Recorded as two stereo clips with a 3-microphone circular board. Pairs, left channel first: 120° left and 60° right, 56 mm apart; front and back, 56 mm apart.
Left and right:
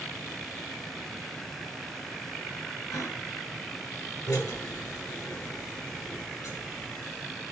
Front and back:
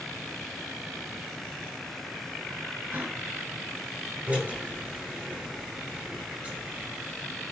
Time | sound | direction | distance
2.9 | a gasp | 125° left | 4 m
4.3 | a drill | 110° left | 9.5 m